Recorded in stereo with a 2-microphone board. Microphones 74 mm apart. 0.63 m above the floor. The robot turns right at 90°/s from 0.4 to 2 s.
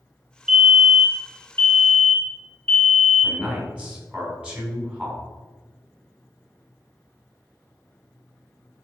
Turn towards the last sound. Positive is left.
turn(degrees=-15)  # may be behind; listen again after turning